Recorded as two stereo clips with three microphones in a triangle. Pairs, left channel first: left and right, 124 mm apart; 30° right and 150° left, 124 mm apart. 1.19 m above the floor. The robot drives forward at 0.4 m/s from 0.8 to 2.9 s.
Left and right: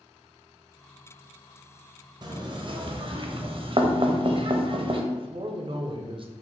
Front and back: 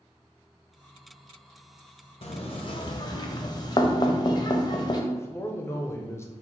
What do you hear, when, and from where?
2.2 s knocking: 45° right, 0.6 m; by 5.0 s 70° right, 0.5 m
5.1 s a man speaking: 90° right, 0.5 m